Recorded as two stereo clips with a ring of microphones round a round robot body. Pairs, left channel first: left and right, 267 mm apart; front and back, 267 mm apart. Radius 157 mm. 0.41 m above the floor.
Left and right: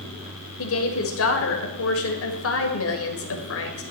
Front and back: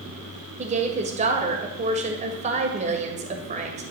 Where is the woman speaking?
115° left, 1.7 m.